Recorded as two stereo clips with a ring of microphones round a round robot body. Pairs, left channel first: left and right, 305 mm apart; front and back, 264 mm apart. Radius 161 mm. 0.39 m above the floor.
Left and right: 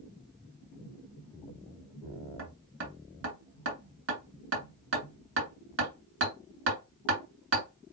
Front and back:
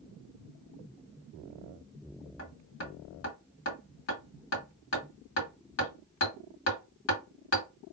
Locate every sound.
2.4 s hammering: 40° right, 2.5 m